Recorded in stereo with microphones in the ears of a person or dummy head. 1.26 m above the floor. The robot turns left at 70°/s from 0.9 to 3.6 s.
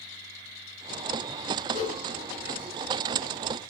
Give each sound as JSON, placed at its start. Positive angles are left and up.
{"t": 1.7, "sound": "a whoosh", "side_deg": 60, "distance_m": 9.0}